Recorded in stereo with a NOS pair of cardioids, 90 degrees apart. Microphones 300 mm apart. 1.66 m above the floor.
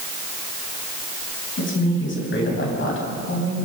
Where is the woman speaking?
40° left, 9.5 m.